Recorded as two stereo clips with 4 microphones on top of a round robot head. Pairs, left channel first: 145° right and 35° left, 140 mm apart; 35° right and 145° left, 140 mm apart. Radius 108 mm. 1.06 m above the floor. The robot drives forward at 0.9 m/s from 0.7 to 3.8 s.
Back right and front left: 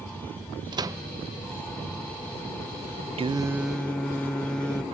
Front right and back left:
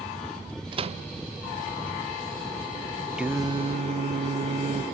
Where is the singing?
60° left, 0.6 m; by 4.8 s 135° left, 0.7 m.